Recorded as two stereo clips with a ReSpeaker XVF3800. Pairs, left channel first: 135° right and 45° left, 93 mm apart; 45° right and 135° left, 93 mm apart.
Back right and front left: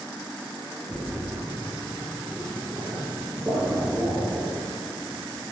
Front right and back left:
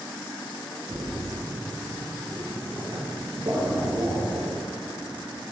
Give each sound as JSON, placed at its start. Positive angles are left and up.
{"t": 0.9, "sound": "a splash", "azimuth_deg": 105, "distance_m": 3.0}